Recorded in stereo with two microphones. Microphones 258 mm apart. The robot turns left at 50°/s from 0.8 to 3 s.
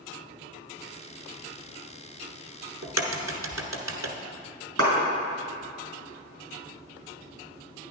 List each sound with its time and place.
2.8 s a crack: 80° right, 1.0 m; by 4.1 s 90° right, 1.0 m
4.8 s a clap: 65° right (ahead or behind), 3.5 m